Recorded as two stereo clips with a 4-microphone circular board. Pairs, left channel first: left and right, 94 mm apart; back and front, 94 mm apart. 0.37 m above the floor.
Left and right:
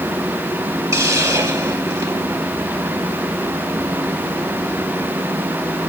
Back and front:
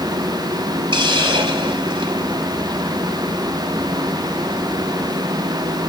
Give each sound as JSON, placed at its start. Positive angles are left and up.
{"t": 0.9, "sound": "a hiss", "azimuth_deg": -30, "distance_m": 3.5}